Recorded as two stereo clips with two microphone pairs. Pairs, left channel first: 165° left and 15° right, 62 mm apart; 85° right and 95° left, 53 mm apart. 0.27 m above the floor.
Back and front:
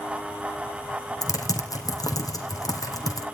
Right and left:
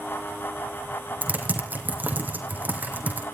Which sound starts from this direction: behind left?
Typing on a keyboard, at 1.2 s.